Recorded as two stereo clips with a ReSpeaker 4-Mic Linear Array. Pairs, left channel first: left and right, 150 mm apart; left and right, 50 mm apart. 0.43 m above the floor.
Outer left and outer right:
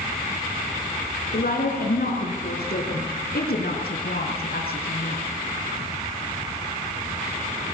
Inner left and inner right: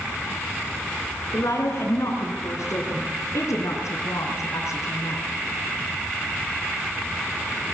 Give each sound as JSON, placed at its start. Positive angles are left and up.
{"t": 1.3, "sound": "a woman speaking", "side_deg": 75, "distance_m": 5.0}